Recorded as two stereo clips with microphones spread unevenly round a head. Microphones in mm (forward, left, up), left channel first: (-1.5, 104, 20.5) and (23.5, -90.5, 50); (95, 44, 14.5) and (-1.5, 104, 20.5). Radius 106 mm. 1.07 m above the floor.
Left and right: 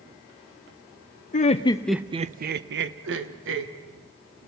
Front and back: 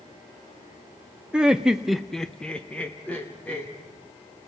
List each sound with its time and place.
1.3 s laughter: 65° left, 0.8 m; by 3.7 s 110° right, 1.7 m